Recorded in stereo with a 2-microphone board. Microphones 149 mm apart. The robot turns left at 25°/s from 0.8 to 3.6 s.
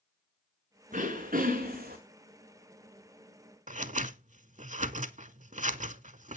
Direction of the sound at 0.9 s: 60° right (ahead or behind).